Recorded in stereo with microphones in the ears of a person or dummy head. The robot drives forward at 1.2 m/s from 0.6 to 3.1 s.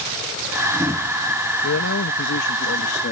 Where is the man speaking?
85° left; by 3.1 s 50° left (ahead or behind).